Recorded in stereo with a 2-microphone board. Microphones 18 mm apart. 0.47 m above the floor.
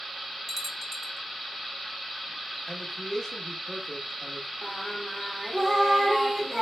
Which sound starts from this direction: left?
A man speaking, at 2.7 s.